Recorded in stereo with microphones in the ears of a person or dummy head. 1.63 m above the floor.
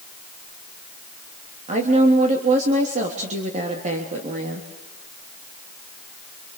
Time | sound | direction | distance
1.7 | a woman speaking | 40° right (ahead or behind) | 3.5 m